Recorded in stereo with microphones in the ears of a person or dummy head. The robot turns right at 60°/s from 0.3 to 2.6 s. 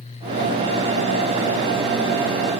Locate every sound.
Only background noise.